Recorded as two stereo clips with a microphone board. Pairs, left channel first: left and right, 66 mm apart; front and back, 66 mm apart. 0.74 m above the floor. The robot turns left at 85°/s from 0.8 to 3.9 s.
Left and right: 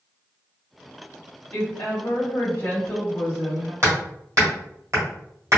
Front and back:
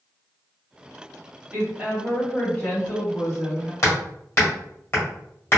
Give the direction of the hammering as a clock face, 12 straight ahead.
2 o'clock.